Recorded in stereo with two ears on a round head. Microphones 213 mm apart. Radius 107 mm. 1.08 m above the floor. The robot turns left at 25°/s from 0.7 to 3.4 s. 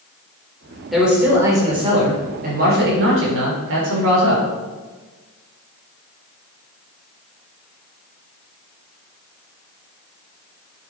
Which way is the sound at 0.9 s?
Straight ahead.